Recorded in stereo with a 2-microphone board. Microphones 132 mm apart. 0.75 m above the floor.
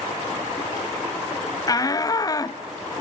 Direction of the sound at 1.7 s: 30° left (ahead or behind).